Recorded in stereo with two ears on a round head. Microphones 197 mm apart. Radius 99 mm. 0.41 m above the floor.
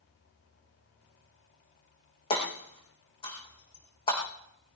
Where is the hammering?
25° left (ahead or behind), 6 m.